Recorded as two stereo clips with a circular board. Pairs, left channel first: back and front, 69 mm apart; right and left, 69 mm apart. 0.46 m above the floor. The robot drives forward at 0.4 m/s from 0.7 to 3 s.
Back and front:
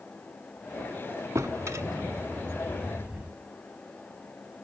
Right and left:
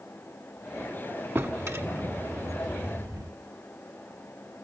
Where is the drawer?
40° left, 1.2 m; by 3.3 s 70° left, 0.8 m.